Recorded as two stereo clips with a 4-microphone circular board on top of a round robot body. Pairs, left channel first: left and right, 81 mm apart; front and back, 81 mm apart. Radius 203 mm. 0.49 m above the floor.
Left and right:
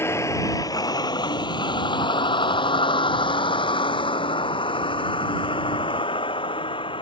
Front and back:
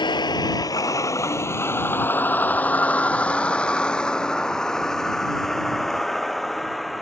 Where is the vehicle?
30° left; by 7.0 s 90° left.